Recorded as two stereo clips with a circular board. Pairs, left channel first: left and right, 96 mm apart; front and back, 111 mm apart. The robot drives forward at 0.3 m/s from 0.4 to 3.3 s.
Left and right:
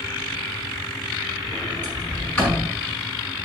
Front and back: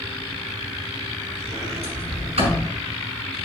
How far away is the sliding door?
About 5 m.